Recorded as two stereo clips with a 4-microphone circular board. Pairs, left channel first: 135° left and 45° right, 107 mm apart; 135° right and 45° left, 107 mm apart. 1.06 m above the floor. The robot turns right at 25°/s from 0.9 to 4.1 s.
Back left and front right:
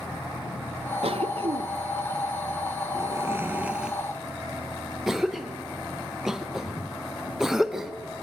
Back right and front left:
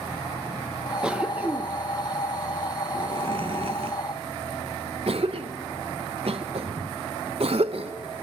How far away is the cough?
About 0.8 m.